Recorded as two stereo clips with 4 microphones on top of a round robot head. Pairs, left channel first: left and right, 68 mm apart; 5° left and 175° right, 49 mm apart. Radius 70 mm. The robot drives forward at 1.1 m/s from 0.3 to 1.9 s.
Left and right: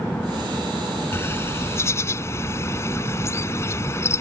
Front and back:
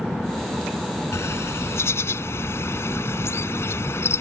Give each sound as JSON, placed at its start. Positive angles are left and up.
{"t": 1.1, "sound": "a bird", "azimuth_deg": 35}